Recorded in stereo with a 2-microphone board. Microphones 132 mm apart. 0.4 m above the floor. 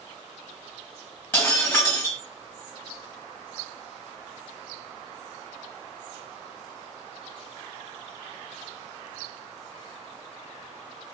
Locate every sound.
1.3 s breaking glass: 15° left (ahead or behind), 1.9 m